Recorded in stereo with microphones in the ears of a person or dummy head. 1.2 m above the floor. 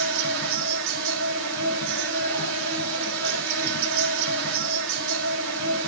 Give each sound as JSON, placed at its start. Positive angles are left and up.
{"t": 0.0, "sound": "an insect", "side_deg": -70, "distance_m": 3.0}